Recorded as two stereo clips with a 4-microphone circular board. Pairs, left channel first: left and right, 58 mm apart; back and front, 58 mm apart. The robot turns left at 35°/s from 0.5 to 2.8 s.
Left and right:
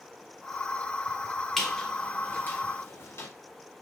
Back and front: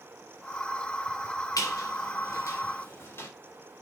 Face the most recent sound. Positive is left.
turn(degrees=135)